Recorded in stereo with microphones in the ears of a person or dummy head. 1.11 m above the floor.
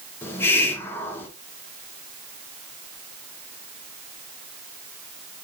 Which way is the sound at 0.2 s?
15° left (ahead or behind).